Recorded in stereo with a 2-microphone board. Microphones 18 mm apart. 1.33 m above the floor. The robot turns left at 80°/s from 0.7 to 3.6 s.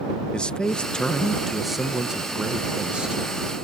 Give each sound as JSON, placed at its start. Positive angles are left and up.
{"t": 0.3, "sound": "a man speaking", "azimuth_deg": 70}